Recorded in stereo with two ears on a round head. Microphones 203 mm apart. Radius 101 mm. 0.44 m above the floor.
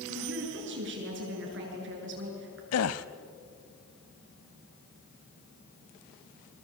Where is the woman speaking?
55° right (ahead or behind), 7 m.